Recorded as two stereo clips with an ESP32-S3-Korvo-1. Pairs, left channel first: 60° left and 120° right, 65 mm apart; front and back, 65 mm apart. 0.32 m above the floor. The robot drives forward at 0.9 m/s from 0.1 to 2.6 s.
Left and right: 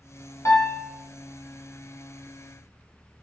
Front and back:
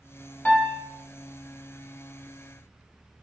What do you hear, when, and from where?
0.5 s a piano: 60° left, 1.7 m; by 0.9 s 75° left, 1.6 m